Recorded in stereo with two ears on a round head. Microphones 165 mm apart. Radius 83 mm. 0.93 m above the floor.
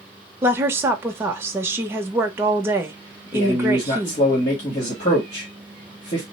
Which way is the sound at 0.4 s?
15° right (ahead or behind).